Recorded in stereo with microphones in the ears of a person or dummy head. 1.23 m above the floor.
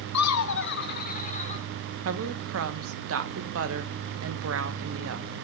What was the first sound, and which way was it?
Laughter, 85° left.